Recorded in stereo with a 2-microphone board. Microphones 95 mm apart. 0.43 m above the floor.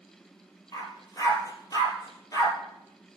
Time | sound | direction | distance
0.7 | a dog barking | 40° left (ahead or behind) | 2.5 m